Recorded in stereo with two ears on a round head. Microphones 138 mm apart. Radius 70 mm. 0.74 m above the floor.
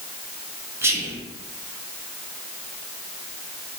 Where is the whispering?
15° right (ahead or behind), 0.5 m.